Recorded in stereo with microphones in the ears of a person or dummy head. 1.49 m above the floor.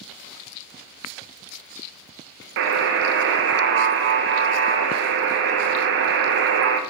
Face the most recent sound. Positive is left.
turn(degrees=-60)  # may be behind; listen again after turning